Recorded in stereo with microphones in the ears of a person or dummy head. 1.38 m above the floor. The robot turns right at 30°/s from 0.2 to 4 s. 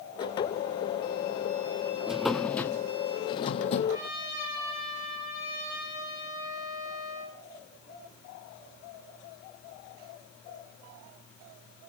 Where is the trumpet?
20° right (ahead or behind), 7.5 m.